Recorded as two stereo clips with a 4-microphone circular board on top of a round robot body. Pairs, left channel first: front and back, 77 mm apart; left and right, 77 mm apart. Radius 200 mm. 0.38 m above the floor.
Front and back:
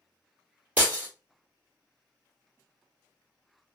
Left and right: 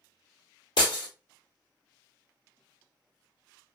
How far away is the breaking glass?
About 1.6 m.